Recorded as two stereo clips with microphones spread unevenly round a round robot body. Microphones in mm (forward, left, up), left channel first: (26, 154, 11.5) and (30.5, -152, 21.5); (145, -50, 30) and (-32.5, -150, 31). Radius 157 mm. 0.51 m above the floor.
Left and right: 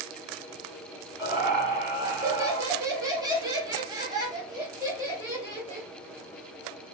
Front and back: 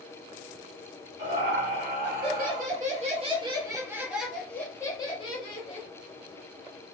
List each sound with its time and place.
1.2 s laughter: 170° right, 1.9 m; by 5.9 s 5° right, 1.4 m